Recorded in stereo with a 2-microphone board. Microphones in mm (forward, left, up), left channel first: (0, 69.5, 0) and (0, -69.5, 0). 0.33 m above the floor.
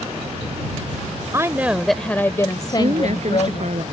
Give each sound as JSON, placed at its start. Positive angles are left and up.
{"t": 1.3, "sound": "a woman speaking", "side_deg": -25}
{"t": 2.7, "sound": "a woman speaking", "side_deg": -60}